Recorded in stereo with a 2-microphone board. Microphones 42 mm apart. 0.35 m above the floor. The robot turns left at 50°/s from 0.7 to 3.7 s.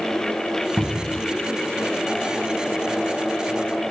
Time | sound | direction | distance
0.8 | a cupboard door | 10° right (ahead or behind) | 0.5 m